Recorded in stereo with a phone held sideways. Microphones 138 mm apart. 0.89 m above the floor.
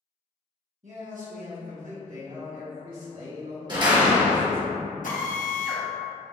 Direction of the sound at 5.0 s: 75° left (ahead or behind).